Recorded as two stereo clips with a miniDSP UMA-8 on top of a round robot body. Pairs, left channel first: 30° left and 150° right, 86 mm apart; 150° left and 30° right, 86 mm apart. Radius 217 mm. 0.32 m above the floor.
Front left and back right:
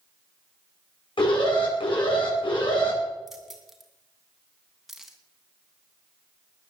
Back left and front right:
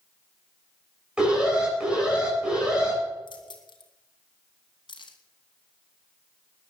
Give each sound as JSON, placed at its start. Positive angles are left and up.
{"t": 1.2, "sound": "an alarm", "azimuth_deg": 50, "distance_m": 8.5}
{"t": 3.3, "sound": "keys jangling", "azimuth_deg": 120, "distance_m": 3.0}